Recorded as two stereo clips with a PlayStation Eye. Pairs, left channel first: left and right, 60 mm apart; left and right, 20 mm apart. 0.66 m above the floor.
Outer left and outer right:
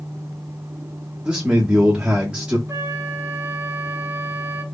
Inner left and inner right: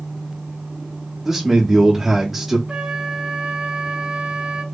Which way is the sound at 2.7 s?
55° right (ahead or behind).